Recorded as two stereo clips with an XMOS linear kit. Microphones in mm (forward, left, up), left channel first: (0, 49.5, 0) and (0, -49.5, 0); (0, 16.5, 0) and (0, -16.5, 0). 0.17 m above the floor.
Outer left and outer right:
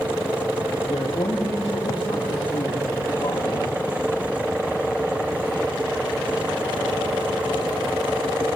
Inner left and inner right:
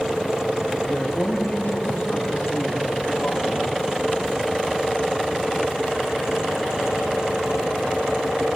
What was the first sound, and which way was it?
A man speaking, 75° left (ahead or behind).